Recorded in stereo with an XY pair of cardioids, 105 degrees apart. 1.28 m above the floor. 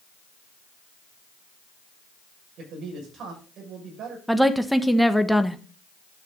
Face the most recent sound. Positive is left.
turn(degrees=-5)